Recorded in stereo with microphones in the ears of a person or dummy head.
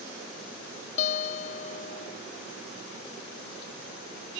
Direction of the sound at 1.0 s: 50° left (ahead or behind).